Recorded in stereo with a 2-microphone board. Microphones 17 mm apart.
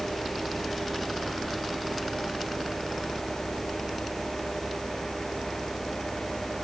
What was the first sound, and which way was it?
Only background noise.